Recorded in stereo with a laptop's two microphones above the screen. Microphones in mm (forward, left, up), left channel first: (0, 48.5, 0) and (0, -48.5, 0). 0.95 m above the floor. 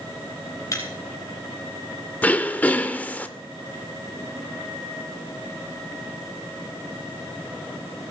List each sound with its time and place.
0.7 s breaking glass: 35° left (ahead or behind), 3 m
2.2 s throat clearing: 15° left (ahead or behind), 0.7 m